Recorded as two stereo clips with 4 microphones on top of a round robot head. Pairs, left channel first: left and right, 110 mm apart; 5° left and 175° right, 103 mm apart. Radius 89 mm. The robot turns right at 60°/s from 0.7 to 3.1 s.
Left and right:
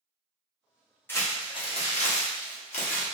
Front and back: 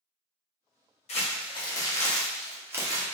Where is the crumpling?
20° left, 1.1 m; by 3.0 s 135° left, 1.1 m.